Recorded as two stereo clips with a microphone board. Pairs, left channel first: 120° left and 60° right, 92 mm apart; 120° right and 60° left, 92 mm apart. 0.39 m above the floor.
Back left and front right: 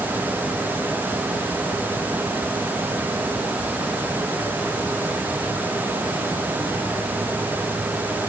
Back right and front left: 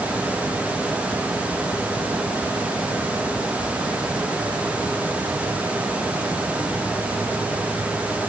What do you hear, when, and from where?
Only background noise.